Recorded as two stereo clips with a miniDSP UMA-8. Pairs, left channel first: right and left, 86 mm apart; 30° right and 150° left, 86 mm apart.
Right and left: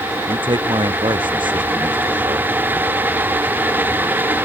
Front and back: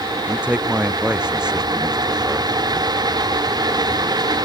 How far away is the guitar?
No guitar in this recording.